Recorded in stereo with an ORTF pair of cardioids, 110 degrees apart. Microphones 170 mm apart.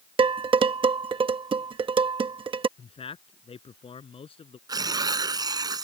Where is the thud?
I don't hear a thud.